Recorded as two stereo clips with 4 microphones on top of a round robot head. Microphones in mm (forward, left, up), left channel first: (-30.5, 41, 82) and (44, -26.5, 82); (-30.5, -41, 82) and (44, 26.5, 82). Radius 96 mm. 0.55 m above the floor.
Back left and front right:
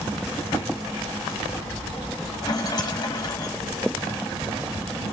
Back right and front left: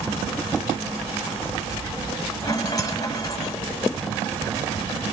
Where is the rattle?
Straight behind, 1.5 m.